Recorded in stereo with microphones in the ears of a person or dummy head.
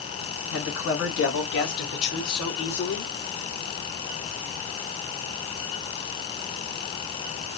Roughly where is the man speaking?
Left.